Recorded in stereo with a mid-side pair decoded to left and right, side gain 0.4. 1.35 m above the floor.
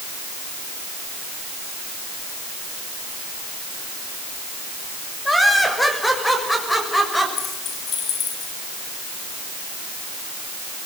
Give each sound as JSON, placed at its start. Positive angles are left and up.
{"t": 5.2, "sound": "laughter", "azimuth_deg": 10, "distance_m": 6.0}
{"t": 7.4, "sound": "keys jangling", "azimuth_deg": 65, "distance_m": 6.0}